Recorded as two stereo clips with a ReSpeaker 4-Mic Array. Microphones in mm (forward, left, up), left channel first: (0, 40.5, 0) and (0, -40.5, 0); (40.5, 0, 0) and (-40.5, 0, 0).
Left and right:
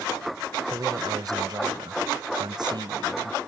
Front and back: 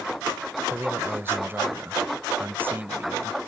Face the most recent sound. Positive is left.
turn(degrees=-115)